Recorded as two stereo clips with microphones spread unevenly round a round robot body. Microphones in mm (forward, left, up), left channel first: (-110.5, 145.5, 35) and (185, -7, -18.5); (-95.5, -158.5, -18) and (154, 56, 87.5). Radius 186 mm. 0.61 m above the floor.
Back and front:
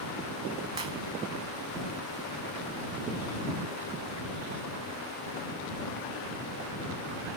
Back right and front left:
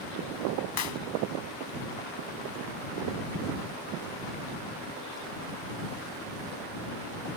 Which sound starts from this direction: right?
A clap, at 0.8 s.